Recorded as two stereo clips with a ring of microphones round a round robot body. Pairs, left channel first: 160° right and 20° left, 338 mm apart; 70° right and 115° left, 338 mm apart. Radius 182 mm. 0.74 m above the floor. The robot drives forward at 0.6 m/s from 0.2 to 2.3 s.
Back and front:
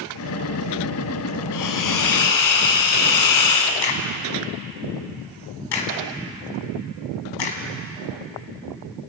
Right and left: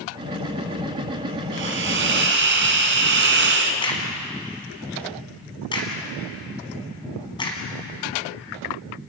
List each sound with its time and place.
1.5 s a hiss: 170° left, 1.9 m
3.8 s a crack: 145° right, 3.5 m